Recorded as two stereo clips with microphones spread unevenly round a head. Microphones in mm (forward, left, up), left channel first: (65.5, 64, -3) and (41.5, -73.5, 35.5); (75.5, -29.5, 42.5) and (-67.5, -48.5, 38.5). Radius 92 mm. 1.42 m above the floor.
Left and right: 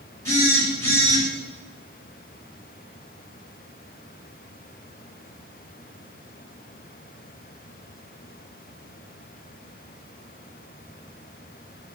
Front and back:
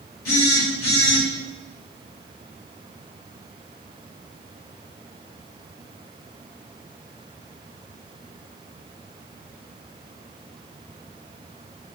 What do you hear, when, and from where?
0.2 s a phone buzzing: 10° left, 3.5 m